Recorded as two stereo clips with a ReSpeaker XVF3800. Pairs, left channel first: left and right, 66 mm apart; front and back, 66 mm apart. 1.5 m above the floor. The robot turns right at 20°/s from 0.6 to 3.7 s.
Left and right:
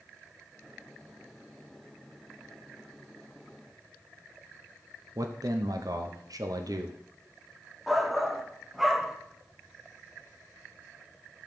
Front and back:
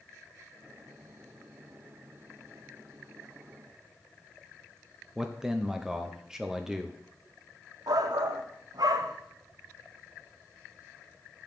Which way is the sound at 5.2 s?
95° right.